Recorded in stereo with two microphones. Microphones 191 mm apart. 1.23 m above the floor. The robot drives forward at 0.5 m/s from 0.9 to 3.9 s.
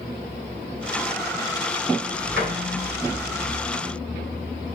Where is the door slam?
70° right (ahead or behind), 3.5 m; by 2.5 s 75° right (ahead or behind), 3.5 m.